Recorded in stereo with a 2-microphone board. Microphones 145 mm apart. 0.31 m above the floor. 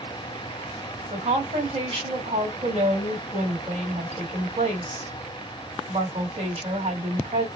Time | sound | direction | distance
1.1 | a woman speaking | 50° right (ahead or behind) | 1.8 m